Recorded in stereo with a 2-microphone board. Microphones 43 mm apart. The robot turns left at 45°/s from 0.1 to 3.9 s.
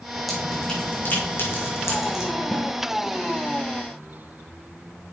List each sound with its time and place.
0.3 s dripping: centre (ahead or behind), 5 m; by 2.3 s 85° left, 5 m
2.5 s a snare drum: 30° left (ahead or behind), 1.5 m; by 2.7 s 35° left (ahead or behind), 1.5 m